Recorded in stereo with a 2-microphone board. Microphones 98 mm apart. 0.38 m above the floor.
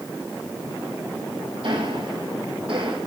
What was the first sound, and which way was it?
Ticking, 65° right (ahead or behind).